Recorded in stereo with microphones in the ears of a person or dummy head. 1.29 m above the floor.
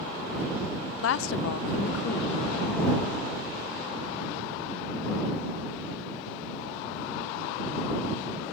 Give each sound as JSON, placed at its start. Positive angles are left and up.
{"t": 1.0, "sound": "a woman speaking", "side_deg": 85}